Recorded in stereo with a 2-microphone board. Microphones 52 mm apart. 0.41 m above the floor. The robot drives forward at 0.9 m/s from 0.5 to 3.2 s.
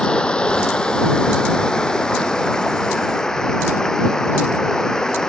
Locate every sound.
0.0 s running water: 20° left (ahead or behind); by 5.3 s 15° left (ahead or behind)